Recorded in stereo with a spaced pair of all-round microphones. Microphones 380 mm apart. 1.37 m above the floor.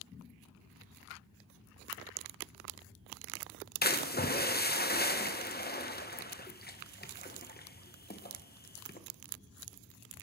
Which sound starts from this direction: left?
A splash, at 3.8 s.